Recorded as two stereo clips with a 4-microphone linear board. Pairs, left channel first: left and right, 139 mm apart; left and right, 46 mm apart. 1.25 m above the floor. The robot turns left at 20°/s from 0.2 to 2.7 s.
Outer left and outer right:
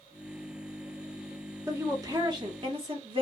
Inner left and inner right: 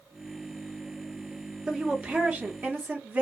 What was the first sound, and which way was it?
A woman speaking, 20° right (ahead or behind).